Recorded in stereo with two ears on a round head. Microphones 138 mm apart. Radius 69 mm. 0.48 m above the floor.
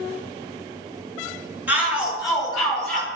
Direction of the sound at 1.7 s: 10° right (ahead or behind).